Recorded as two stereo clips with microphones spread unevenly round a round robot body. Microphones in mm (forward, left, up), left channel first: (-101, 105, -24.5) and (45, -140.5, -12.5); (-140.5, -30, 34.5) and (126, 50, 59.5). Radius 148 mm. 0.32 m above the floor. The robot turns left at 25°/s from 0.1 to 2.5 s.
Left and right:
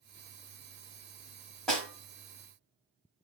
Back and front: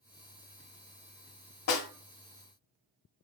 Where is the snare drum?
155° right, 1.0 m; by 1.9 s 160° right, 1.0 m.